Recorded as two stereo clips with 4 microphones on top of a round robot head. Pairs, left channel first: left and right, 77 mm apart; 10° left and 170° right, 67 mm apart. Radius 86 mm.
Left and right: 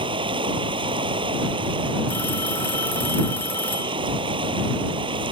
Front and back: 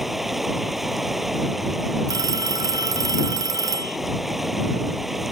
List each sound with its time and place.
0.0 s running water: 85° right
2.1 s a phone ringing: 160° left